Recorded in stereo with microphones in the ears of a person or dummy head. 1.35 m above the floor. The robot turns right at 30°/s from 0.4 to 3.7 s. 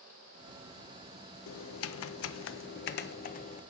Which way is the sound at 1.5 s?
80° left.